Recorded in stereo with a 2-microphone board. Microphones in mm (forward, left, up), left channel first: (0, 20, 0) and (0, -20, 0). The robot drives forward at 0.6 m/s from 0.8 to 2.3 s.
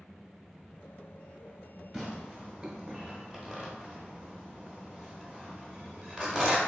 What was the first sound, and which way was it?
Tearing paper, 10° right (ahead or behind).